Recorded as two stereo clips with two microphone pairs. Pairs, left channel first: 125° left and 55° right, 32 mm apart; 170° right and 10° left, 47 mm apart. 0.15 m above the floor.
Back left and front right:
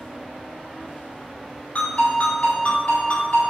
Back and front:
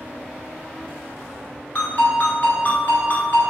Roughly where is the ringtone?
Behind left.